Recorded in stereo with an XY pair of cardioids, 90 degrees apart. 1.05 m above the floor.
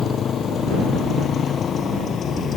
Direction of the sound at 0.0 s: 65° left.